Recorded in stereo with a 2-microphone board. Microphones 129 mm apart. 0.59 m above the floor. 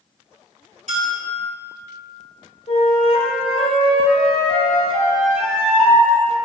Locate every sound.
0.9 s a bell: 70° right (ahead or behind), 2.5 m
2.7 s a flute: 70° left (ahead or behind), 2 m